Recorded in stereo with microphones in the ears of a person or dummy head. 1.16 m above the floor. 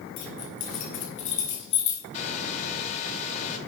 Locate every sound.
0.2 s keys jangling: 45° left (ahead or behind), 3 m; by 2.0 s 35° left (ahead or behind), 1.7 m
2.1 s a hair dryer: 40° left (ahead or behind), 1.5 m